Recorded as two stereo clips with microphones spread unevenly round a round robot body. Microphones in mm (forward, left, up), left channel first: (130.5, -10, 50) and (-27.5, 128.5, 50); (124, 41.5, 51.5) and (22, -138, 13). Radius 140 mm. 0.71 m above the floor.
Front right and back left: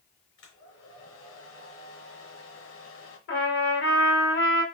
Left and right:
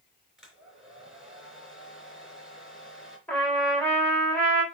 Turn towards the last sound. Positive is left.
turn(degrees=-25)